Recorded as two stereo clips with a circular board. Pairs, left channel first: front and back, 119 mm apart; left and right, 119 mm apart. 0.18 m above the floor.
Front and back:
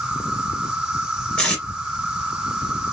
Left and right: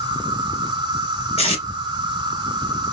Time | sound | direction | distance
0.0 | an insect | 100° right | 1.3 m
1.4 | tape being pulled | 85° left | 2 m